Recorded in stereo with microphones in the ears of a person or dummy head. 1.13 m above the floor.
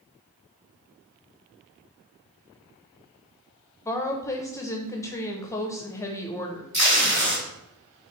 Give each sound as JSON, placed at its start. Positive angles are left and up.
{"t": 3.9, "sound": "a woman speaking", "side_deg": 15, "distance_m": 0.7}
{"t": 6.7, "sound": "tape being pulled", "side_deg": -25, "distance_m": 1.0}